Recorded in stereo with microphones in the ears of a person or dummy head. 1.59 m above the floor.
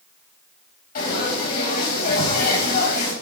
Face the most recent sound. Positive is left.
turn(degrees=55)  # may be behind; listen again after turning